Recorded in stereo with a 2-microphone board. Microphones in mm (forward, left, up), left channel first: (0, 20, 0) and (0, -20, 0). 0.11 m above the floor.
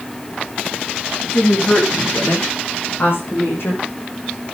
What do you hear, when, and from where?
1.2 s a woman speaking: 70° left (ahead or behind), 9 m; by 3.8 s 65° left (ahead or behind), 6 m